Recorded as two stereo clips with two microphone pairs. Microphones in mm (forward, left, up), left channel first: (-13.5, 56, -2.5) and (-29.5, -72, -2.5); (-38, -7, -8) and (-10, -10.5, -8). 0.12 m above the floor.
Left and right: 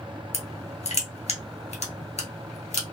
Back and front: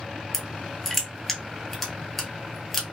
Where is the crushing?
90° left, 0.9 m.